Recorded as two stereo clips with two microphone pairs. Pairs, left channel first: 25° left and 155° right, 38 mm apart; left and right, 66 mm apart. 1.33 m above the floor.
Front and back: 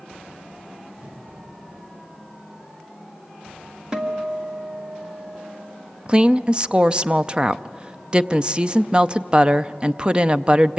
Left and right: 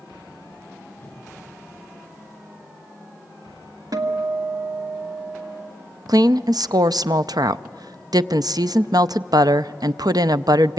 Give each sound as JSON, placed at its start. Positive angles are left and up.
{"t": 1.0, "sound": "a whoosh", "azimuth_deg": 160, "distance_m": 2.5}
{"t": 3.9, "sound": "a guitar", "azimuth_deg": -85, "distance_m": 1.6}
{"t": 6.1, "sound": "a woman speaking", "azimuth_deg": -95, "distance_m": 0.5}